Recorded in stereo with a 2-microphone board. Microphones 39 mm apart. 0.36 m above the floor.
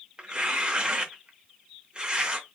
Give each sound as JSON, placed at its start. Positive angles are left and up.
{"t": 0.2, "sound": "tearing paper", "side_deg": -25, "distance_m": 0.7}